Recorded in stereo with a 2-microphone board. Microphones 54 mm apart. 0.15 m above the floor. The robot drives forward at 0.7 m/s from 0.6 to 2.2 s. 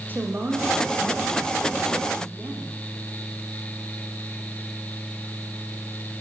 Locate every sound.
0.1 s a woman speaking: 35° right (ahead or behind), 6.5 m; by 2.7 s 30° right (ahead or behind), 7.5 m